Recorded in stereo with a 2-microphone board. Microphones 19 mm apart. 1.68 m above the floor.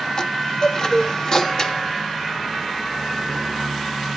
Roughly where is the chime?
Left.